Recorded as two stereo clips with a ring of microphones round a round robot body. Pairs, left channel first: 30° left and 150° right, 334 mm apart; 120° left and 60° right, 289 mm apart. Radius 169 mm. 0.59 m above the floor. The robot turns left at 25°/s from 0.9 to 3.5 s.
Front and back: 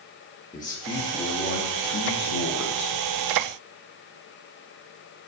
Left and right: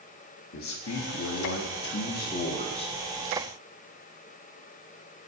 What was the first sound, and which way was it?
A man speaking, 105° left.